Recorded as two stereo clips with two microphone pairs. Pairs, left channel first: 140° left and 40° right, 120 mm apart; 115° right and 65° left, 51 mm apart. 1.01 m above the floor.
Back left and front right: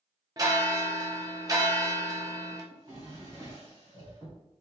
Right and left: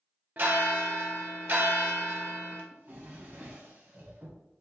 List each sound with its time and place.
0.4 s a bell: 20° left, 0.9 m
2.7 s a drawer: 20° left, 1.4 m